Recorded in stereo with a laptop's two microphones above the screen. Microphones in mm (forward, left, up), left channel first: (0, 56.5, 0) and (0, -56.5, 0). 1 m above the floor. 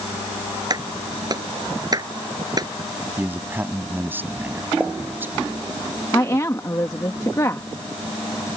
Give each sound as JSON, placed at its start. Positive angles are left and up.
{"t": 0.7, "sound": "a clap", "side_deg": -35}
{"t": 3.2, "sound": "a man speaking", "side_deg": -20}
{"t": 4.8, "sound": "a pop", "side_deg": -10}
{"t": 6.1, "sound": "a woman speaking", "side_deg": 30}